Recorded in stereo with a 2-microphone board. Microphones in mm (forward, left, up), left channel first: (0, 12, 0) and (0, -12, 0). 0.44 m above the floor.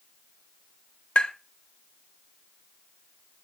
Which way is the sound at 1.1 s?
55° left (ahead or behind).